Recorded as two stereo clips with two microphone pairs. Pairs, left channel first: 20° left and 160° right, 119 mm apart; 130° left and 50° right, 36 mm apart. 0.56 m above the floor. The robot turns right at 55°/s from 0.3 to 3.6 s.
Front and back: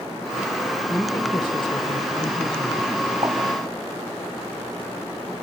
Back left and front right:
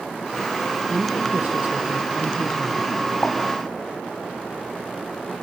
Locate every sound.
0.9 s a woman speaking: 50° right, 2 m; by 3.0 s 60° left, 2 m
3.2 s a pop: 150° left, 4 m; by 3.4 s 160° left, 4 m